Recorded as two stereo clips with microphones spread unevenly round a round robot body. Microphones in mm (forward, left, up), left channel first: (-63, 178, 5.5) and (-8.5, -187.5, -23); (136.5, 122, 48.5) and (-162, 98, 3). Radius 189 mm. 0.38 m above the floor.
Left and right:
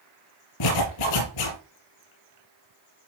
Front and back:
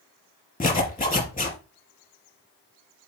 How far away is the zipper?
About 4 m.